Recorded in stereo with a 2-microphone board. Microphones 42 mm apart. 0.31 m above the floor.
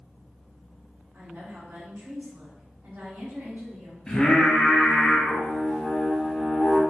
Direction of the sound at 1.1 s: 55° right (ahead or behind).